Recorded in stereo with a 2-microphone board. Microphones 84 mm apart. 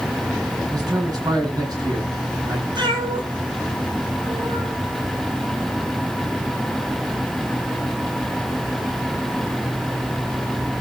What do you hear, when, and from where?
0.7 s a man speaking: 50° right (ahead or behind), 8 m
2.8 s a cat meowing: 60° right (ahead or behind), 5.5 m